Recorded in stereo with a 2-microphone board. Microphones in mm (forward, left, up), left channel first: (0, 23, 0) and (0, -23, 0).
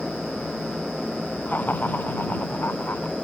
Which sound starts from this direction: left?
Laughter, at 1.5 s.